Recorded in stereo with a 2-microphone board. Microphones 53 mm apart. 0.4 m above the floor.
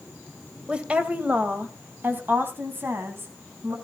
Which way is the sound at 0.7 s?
20° right (ahead or behind).